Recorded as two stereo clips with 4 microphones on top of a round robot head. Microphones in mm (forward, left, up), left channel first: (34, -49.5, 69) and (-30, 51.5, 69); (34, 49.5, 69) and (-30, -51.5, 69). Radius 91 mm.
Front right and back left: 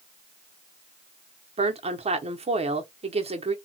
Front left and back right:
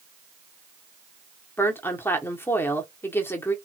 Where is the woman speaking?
125° left, 1.1 m.